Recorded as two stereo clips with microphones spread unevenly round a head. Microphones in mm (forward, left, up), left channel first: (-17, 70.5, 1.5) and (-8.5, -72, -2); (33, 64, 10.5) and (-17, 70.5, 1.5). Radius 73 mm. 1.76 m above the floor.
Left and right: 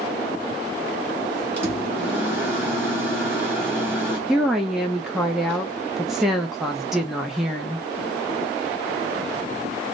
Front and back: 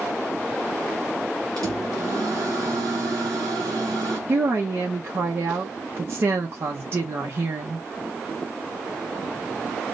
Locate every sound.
1.6 s a microwave: 165° right, 1.2 m
4.3 s a woman speaking: 175° right, 0.6 m